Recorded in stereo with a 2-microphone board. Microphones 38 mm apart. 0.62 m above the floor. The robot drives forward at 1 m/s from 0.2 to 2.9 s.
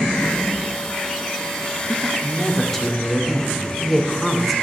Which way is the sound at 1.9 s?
5° left (ahead or behind).